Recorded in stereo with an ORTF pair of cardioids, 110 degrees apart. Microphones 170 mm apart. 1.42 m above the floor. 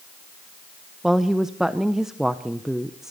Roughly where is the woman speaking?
Ahead.